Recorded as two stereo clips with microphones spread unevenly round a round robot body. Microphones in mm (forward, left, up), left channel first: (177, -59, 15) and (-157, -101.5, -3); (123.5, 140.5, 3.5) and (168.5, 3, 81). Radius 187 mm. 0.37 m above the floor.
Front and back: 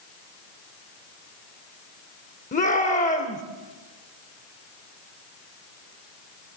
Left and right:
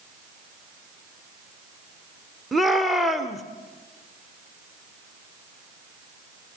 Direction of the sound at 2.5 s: 65° left.